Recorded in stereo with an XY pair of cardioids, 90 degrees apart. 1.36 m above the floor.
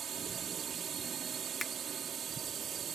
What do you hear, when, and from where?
0.0 s a drone: 60° right
1.6 s a finger snap: 30° left